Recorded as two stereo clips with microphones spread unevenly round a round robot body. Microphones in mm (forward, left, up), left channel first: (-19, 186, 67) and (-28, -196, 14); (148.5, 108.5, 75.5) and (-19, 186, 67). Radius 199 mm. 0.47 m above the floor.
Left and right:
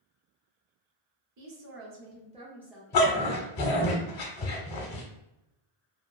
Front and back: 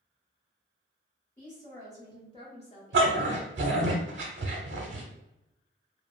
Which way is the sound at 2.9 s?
130° left.